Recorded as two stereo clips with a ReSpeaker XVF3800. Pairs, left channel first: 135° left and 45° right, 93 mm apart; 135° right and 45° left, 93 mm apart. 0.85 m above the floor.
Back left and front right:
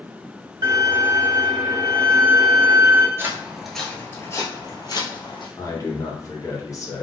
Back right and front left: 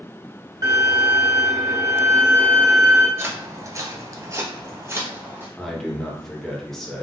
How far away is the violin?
About 1.8 m.